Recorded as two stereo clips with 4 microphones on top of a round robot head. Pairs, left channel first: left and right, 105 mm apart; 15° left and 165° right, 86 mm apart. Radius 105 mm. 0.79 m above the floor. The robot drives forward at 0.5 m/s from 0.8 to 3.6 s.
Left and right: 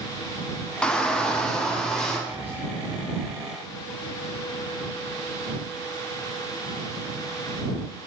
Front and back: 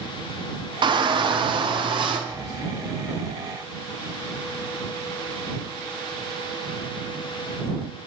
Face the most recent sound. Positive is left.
turn(degrees=-30)